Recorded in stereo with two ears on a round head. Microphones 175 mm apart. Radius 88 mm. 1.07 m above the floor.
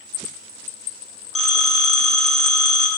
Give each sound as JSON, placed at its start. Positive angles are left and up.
{"t": 1.4, "sound": "a phone ringing", "side_deg": 0, "distance_m": 1.6}